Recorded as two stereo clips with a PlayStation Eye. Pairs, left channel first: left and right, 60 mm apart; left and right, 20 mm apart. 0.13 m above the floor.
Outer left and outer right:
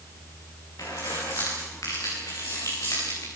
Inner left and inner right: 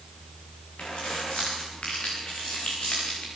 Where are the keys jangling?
75° left (ahead or behind), 9 m.